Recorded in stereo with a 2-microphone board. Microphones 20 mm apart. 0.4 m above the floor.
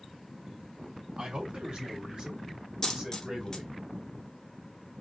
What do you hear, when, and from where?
1.2 s a man speaking: 60° right (ahead or behind), 2.5 m; by 3.7 s 30° right (ahead or behind), 2.5 m
2.8 s a dropped coin: 25° left (ahead or behind), 1.5 m